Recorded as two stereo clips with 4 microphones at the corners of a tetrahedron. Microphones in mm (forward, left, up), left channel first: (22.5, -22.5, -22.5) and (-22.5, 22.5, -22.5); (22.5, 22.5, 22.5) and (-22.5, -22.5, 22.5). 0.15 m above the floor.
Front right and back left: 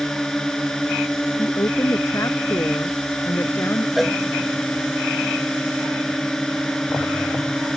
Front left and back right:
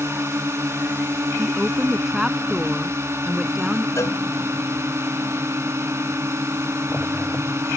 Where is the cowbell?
45° left.